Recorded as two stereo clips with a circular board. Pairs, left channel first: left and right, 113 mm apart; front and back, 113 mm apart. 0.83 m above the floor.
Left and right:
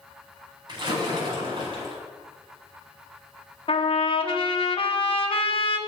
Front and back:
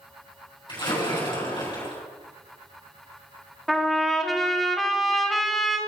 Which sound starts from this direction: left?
A trumpet, at 3.7 s.